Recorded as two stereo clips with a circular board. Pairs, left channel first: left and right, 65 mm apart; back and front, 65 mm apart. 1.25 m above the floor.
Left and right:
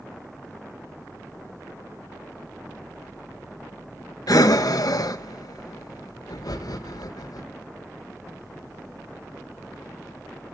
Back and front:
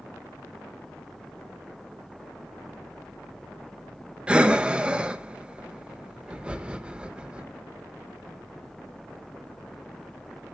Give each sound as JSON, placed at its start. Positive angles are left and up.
{"t": 4.3, "sound": "breathing", "azimuth_deg": 75, "distance_m": 0.9}